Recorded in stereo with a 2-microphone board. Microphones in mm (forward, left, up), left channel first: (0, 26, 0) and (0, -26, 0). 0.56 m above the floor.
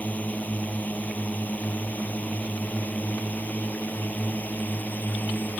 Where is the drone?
30° left (ahead or behind); by 5.6 s 35° left (ahead or behind).